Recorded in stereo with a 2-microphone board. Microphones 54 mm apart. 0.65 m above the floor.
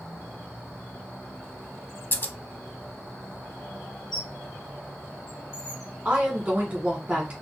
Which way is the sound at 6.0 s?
20° right (ahead or behind).